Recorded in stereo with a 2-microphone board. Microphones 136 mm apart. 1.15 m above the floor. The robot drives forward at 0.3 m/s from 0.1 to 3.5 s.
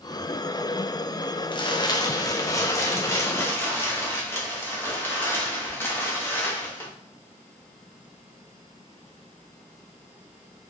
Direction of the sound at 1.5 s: 35° left (ahead or behind).